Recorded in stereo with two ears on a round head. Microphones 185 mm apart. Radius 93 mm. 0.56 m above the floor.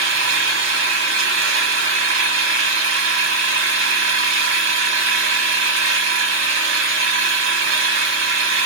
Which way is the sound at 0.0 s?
65° right (ahead or behind).